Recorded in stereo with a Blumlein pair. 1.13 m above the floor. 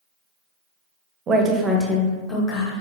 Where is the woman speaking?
25° right, 0.7 m; by 2.8 s 30° left, 1.2 m.